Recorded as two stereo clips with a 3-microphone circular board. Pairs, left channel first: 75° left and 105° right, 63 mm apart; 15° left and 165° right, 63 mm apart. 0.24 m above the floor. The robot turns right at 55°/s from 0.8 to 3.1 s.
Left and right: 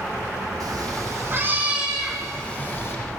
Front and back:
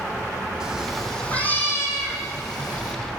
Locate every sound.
0.6 s a cat meowing: 90° right, 5.5 m; by 3.0 s 30° left, 5.5 m